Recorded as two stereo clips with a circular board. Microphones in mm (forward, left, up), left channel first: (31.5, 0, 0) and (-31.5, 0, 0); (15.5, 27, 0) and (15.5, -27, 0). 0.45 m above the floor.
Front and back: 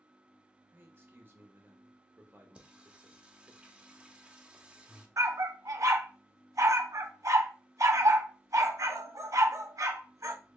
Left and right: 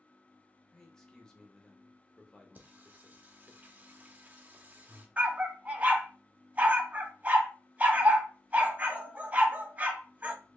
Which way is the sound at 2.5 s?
120° right.